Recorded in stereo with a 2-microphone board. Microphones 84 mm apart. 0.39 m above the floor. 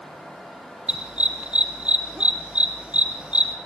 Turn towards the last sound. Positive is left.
turn(degrees=-15)  # may be behind; listen again after turning